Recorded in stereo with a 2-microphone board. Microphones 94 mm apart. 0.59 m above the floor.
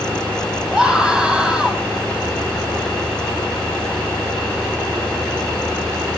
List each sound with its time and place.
0.7 s a scream: 10° right (ahead or behind), 4.5 m